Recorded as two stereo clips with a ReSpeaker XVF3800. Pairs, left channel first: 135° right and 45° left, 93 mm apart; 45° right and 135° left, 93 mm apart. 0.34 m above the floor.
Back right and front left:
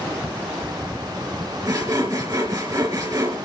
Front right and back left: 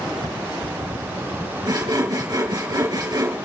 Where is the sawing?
90° left, 3.5 m.